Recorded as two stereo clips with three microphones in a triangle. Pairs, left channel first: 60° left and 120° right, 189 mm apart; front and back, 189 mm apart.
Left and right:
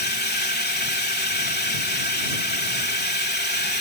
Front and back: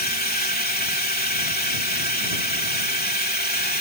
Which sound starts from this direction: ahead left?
A drone, at 0.0 s.